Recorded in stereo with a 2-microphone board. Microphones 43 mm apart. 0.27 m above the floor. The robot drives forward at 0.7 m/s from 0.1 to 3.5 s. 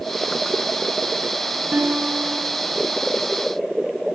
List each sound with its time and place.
1.7 s a guitar: 40° right (ahead or behind), 1.6 m